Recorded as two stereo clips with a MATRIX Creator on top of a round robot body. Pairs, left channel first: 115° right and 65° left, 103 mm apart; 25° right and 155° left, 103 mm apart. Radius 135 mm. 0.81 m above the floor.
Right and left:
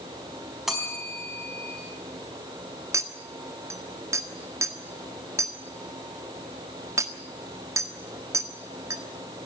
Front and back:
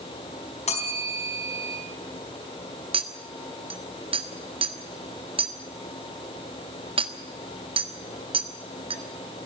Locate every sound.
0.7 s a bell: 20° right, 4.5 m
2.9 s a clink: 130° left, 1.6 m